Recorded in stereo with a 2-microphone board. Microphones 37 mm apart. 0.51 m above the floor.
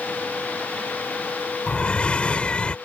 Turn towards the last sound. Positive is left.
turn(degrees=35)  # may be behind; listen again after turning